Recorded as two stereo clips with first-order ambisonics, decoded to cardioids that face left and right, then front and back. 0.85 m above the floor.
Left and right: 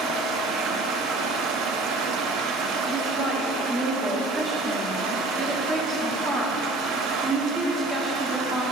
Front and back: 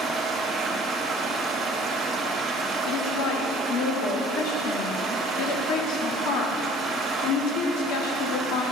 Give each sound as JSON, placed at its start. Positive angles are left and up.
{"t": 0.0, "sound": "running water", "azimuth_deg": -115, "distance_m": 0.8}
{"t": 2.9, "sound": "a woman speaking", "azimuth_deg": -20, "distance_m": 1.6}